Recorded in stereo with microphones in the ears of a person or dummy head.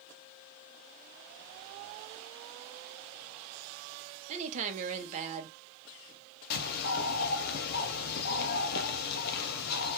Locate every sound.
4.3 s a woman speaking: 35° right (ahead or behind), 0.6 m
6.5 s a bird: 50° left (ahead or behind), 0.5 m